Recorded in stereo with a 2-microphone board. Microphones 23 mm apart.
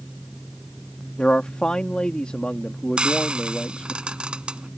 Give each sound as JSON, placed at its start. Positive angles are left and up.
{"t": 1.2, "sound": "a man speaking", "side_deg": 50}
{"t": 3.0, "sound": "frying", "side_deg": -45}